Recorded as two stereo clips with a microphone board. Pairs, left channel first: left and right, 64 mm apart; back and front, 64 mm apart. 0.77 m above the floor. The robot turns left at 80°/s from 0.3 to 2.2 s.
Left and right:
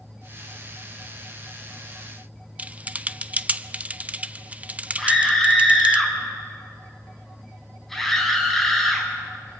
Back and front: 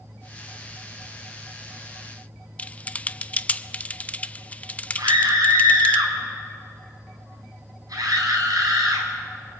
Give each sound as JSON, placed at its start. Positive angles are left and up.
{"t": 2.6, "sound": "typing on a keyboard", "azimuth_deg": -135, "distance_m": 0.6}
{"t": 5.0, "sound": "a scream", "azimuth_deg": 5, "distance_m": 6.5}